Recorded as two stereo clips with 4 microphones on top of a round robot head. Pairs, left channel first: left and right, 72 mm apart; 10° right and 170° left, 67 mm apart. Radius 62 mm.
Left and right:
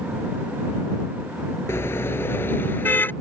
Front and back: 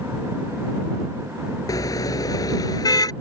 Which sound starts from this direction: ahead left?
A car horn, at 1.7 s.